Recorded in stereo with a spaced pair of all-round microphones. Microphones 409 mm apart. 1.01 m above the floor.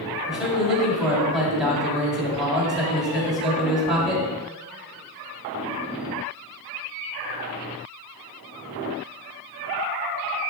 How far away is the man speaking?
About 1.8 m.